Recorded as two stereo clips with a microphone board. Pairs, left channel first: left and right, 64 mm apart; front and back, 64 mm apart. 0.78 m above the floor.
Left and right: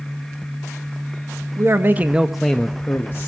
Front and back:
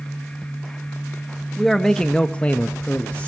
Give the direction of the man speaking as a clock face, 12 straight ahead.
3 o'clock.